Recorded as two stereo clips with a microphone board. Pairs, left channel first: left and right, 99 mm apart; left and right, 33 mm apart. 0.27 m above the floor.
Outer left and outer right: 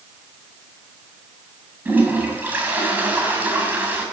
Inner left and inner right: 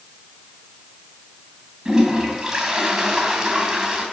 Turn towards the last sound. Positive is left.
turn(degrees=-20)  # may be behind; listen again after turning